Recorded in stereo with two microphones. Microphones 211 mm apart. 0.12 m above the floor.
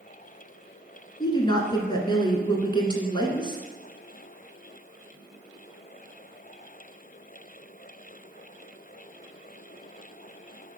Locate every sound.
1.2 s a woman speaking: 20° left (ahead or behind), 1.1 m